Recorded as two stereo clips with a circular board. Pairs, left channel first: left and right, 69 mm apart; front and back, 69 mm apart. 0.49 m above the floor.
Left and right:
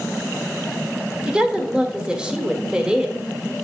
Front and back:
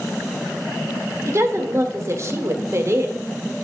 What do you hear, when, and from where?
1.3 s a woman speaking: 160° right, 1.4 m